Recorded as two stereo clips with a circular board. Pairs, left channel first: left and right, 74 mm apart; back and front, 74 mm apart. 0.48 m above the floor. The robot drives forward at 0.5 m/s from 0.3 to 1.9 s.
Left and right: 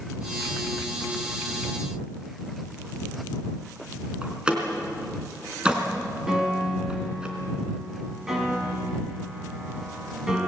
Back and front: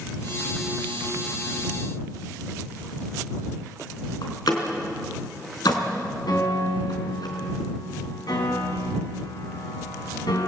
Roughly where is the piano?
Behind.